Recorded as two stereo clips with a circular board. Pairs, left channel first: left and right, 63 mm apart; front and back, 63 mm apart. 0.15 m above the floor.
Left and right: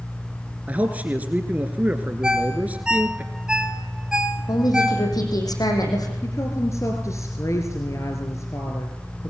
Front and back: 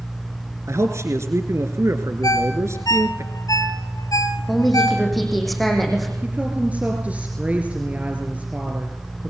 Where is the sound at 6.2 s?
115° left, 3 m.